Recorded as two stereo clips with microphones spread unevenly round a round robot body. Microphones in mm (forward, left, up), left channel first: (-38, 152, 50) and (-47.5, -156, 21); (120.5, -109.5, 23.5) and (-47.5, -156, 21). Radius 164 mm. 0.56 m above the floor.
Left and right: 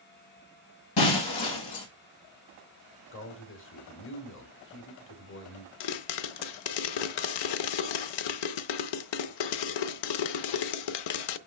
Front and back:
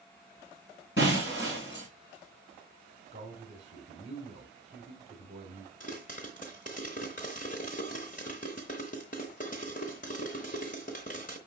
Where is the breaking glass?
75° left, 2.0 m.